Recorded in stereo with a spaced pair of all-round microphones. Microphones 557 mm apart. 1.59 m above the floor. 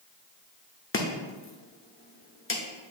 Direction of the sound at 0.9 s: 25° left (ahead or behind).